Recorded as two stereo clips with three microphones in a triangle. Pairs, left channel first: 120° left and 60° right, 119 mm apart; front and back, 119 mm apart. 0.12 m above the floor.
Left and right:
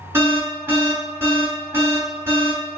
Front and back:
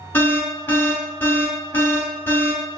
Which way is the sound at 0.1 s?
40° right.